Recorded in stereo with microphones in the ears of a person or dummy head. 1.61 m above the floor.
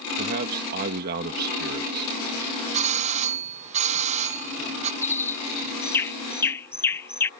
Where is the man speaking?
55° right (ahead or behind).